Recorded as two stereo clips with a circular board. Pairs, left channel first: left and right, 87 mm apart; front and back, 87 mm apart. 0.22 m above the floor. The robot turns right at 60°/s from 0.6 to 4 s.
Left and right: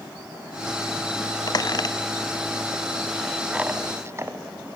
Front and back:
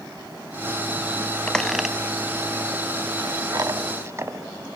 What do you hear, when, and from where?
1.5 s a squeak: 75° left, 0.5 m; by 4.4 s 135° right, 0.5 m